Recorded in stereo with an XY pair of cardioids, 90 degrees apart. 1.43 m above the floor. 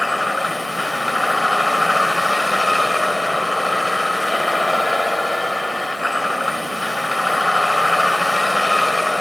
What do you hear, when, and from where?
0.0 s a vehicle: 10° left